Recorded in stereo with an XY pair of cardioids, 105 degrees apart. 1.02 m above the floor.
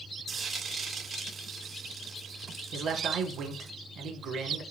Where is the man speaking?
65° right, 3.5 m.